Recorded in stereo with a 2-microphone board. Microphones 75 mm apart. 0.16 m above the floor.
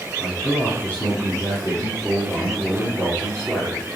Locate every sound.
0.2 s a man speaking: 35° left (ahead or behind), 3 m